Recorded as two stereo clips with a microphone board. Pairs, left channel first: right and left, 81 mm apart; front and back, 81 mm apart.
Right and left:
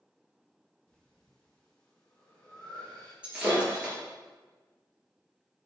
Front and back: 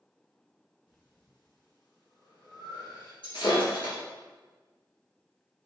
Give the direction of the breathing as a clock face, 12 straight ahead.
12 o'clock.